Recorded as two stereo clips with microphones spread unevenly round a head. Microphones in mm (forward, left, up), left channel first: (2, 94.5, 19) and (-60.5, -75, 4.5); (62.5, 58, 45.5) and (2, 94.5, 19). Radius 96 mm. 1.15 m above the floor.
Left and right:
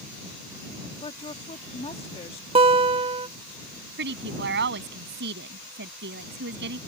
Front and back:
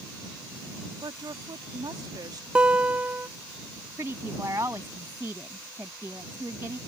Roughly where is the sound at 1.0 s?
Behind left.